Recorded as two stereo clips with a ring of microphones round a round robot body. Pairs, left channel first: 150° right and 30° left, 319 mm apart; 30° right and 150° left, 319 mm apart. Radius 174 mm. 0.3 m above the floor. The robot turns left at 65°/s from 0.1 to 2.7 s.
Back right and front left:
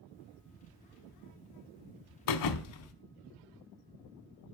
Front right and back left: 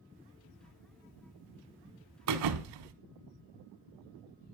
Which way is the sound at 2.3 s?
170° right.